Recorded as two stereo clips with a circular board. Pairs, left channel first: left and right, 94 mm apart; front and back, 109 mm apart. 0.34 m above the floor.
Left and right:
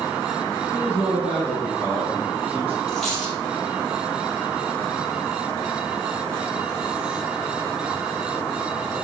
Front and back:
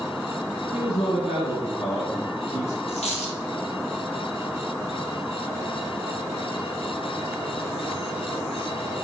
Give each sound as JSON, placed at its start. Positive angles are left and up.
{"t": 0.7, "sound": "a man speaking", "azimuth_deg": -15, "distance_m": 2.0}
{"t": 2.9, "sound": "a dropped coin", "azimuth_deg": 5, "distance_m": 2.0}